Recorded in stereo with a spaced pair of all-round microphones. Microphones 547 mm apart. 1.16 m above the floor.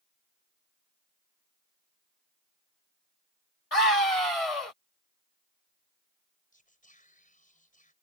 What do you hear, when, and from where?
3.7 s a scream: 90° left
6.5 s whispering: 15° left (ahead or behind)